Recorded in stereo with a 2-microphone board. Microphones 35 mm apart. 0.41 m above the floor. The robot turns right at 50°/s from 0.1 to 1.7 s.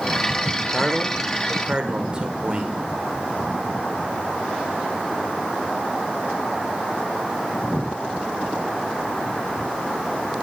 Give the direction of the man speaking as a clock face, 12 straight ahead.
6 o'clock.